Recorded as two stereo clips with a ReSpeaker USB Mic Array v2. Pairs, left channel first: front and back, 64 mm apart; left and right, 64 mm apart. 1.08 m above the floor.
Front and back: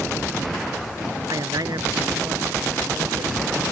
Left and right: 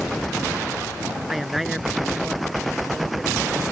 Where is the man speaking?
175° right.